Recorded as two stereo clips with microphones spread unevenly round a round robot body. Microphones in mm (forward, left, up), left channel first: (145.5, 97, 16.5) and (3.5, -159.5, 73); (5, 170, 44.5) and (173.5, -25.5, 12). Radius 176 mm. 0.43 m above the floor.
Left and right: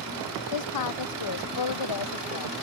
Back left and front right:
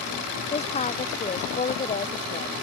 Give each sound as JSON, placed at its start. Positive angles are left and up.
{"t": 0.5, "sound": "a woman speaking", "azimuth_deg": 65}